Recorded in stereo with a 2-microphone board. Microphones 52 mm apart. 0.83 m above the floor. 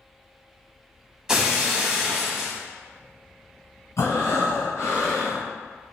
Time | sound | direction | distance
1.3 | breaking glass | 10° right (ahead or behind) | 0.7 m
4.0 | breathing | 75° left (ahead or behind) | 1.9 m